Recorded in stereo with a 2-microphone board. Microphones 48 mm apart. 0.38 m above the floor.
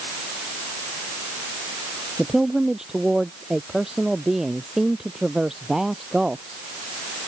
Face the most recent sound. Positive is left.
turn(degrees=-10)  # may be behind; listen again after turning